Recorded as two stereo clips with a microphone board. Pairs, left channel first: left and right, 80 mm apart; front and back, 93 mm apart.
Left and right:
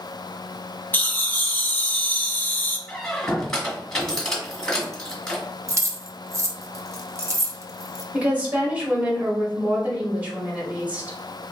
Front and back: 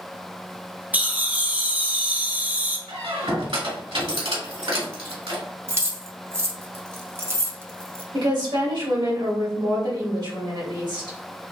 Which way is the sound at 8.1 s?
160° right.